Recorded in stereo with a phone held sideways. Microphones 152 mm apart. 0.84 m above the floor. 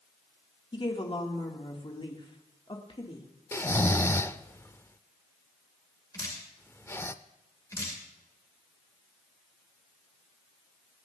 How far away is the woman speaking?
About 2.5 m.